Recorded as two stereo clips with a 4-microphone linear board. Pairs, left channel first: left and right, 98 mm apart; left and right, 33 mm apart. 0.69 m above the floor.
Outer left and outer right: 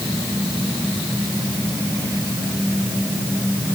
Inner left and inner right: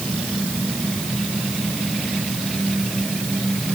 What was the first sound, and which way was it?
Only background noise.